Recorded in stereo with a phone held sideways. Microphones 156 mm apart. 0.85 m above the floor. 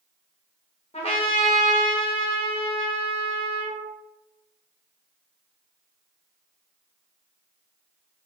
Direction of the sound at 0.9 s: 45° left (ahead or behind).